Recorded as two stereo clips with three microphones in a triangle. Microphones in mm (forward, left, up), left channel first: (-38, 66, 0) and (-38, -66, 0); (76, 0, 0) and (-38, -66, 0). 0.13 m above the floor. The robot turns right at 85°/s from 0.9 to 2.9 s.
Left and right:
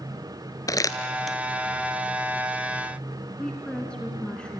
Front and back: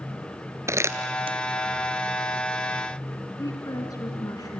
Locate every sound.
0.7 s crumpling: 145° left, 1.1 m; by 1.4 s 170° right, 1.1 m
3.4 s a woman speaking: 15° left, 1.8 m